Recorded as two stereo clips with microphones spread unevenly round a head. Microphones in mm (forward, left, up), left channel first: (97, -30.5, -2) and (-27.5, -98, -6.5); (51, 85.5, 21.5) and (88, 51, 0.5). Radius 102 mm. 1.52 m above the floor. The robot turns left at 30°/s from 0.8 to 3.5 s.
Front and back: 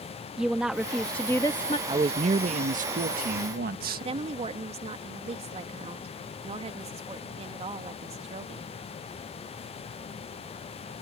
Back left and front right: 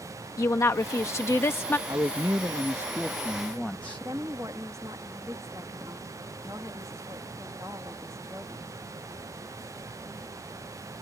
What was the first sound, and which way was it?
A woman speaking, 120° left.